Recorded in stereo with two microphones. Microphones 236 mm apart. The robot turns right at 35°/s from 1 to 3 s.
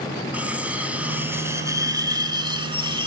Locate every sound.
0.3 s cutlery clinking: 5° right (ahead or behind), 0.6 m; by 3.1 s 20° right (ahead or behind), 0.6 m